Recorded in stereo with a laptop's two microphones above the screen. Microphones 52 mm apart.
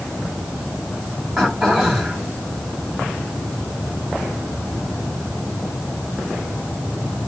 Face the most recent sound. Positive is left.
turn(degrees=-5)  # may be behind; listen again after turning